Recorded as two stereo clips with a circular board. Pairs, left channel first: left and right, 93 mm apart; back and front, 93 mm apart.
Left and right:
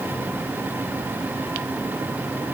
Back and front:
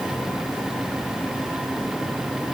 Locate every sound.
Only background noise.